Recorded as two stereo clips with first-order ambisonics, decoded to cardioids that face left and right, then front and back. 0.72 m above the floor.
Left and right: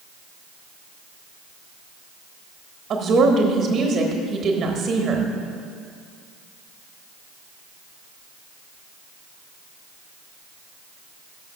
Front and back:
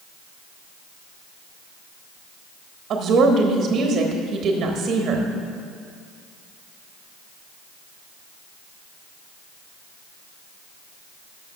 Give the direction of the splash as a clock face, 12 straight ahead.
No splash in this recording.